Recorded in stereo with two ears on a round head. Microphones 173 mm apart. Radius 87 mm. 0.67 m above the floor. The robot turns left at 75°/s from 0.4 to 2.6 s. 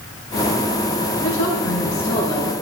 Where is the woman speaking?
95° left, 5.5 m; by 2.5 s 5° right, 5.5 m.